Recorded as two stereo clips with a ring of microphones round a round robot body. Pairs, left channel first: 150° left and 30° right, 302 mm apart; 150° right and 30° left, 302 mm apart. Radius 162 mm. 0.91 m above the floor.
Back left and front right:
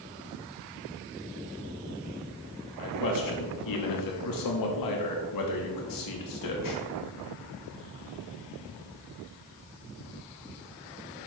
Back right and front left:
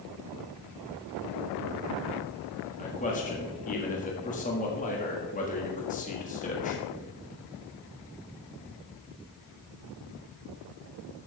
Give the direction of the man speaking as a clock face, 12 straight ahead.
7 o'clock.